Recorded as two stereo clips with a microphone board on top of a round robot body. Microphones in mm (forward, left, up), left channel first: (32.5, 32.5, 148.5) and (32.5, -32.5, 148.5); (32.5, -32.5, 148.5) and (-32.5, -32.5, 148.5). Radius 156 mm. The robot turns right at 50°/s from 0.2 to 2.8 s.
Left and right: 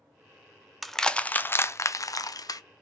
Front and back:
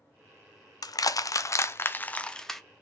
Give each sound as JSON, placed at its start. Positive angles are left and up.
{"t": 0.8, "sound": "crushing", "azimuth_deg": 0, "distance_m": 0.6}